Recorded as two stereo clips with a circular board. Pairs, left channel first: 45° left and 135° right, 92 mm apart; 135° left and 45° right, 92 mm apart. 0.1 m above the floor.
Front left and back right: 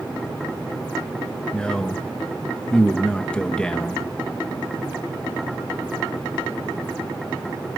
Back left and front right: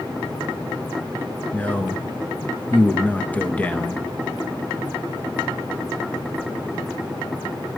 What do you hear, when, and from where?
1.5 s a man speaking: 105° left, 1.1 m